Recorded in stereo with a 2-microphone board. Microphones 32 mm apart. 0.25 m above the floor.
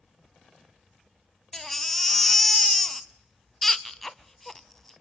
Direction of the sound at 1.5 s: 10° left (ahead or behind).